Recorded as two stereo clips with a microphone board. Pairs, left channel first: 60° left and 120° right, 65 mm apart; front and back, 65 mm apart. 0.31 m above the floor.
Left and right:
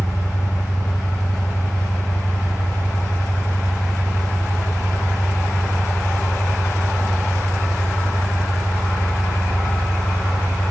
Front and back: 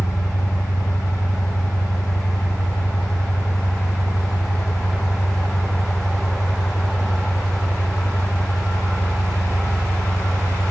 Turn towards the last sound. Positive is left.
turn(degrees=30)